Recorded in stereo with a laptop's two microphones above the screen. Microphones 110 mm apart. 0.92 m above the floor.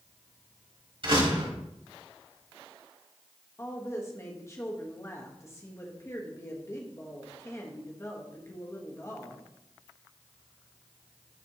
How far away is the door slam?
About 3.5 m.